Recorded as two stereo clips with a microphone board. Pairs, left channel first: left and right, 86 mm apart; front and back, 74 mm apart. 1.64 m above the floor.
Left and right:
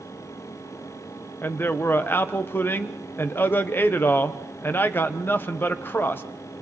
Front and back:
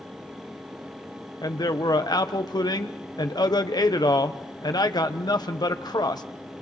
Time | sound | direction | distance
1.4 | a man speaking | 25° left | 1.1 m